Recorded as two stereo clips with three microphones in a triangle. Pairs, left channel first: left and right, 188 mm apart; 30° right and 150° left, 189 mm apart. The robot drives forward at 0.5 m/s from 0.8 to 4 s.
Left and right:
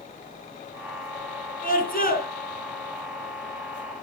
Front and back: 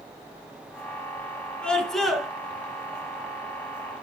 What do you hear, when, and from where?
1.6 s a scream: 55° left, 2.5 m; by 2.3 s 60° left, 2.5 m